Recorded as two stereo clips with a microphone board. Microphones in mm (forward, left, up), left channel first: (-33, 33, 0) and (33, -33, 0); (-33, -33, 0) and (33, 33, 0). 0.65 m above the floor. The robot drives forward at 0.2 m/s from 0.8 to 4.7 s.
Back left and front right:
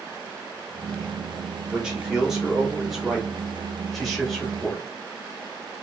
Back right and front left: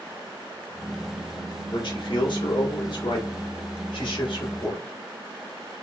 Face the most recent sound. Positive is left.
turn(degrees=-135)